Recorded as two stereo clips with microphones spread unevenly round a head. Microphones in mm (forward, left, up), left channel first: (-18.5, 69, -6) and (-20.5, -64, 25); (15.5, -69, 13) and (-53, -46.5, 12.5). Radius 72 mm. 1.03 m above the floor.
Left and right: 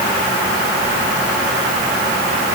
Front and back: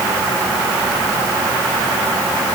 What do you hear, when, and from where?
Only background noise.